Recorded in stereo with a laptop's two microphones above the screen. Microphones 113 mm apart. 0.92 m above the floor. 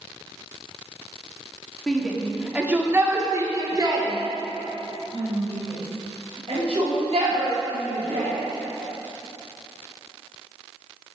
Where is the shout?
5° left (ahead or behind), 2.5 m; by 8.3 s 65° right (ahead or behind), 8.5 m.